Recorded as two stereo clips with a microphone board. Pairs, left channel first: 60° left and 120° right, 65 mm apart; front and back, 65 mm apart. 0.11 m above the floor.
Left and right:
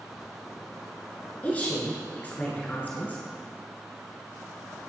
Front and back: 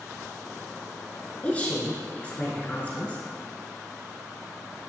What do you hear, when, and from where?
1.4 s a woman speaking: 35° left, 1.2 m